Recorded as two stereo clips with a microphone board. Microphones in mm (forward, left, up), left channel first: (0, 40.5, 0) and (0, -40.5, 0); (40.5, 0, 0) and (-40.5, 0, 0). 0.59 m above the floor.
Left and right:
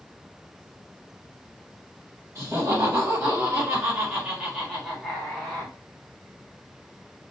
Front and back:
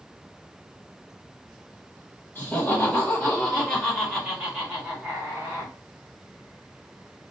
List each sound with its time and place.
2.4 s laughter: 50° right, 1.7 m; by 5.7 s 155° left, 1.4 m